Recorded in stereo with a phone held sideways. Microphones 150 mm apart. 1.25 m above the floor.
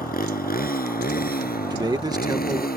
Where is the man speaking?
25° right (ahead or behind).